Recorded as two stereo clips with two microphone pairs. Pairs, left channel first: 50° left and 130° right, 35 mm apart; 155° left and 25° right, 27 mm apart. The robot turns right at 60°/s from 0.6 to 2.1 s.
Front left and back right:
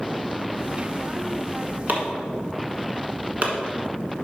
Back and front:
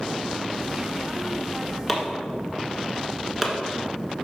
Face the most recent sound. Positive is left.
turn(degrees=-105)